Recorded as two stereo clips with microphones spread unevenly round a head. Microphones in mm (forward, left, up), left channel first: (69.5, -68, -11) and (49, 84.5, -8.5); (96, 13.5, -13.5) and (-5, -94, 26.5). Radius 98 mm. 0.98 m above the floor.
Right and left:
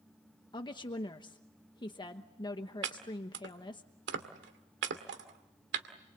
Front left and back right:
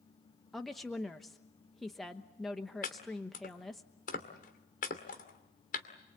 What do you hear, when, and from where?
0.5 s a woman speaking: 30° right, 1.1 m
2.8 s chopping: 95° left, 2.5 m